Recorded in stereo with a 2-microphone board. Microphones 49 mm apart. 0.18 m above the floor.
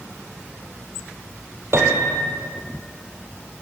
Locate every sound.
1.7 s a piano: 60° right (ahead or behind), 4 m